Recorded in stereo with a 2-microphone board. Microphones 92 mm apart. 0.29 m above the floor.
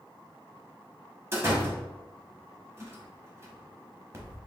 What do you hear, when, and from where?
1.3 s a door slam: 30° right (ahead or behind), 1.1 m